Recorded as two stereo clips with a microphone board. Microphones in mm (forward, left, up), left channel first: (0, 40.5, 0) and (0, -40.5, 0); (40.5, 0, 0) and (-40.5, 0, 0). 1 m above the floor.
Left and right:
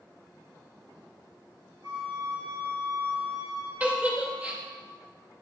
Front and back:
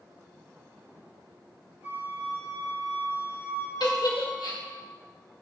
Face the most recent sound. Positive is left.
turn(degrees=-20)